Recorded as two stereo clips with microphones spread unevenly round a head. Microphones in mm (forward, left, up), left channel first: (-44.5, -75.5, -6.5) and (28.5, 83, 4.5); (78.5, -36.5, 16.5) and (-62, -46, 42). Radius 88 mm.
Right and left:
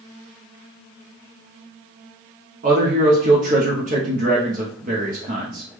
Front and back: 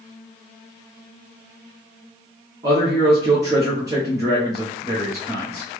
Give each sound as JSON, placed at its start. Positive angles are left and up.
{"t": 2.6, "sound": "a man speaking", "azimuth_deg": 110, "distance_m": 0.7}